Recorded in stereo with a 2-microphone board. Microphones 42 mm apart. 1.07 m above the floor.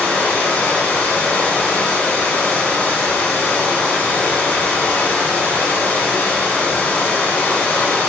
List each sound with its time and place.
0.0 s running water: 60° left (ahead or behind), 1.4 m